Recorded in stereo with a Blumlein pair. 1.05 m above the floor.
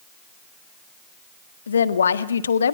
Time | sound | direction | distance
1.7 | a woman speaking | 70° left | 1.5 m